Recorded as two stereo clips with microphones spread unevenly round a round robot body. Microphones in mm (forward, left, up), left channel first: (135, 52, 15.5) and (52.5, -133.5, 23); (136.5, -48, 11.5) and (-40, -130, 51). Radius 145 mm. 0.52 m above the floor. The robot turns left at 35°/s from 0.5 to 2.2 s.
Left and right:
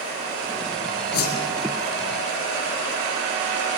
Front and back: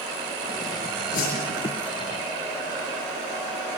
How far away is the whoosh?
About 7 m.